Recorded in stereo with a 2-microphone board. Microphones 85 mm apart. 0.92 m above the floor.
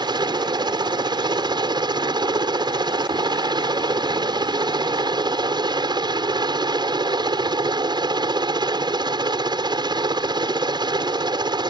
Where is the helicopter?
60° right (ahead or behind).